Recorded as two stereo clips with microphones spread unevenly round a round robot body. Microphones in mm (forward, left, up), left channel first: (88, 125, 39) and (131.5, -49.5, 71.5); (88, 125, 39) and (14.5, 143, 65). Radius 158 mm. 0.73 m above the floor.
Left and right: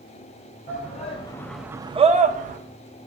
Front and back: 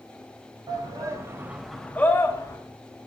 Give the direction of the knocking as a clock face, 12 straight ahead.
I don't hear knocking.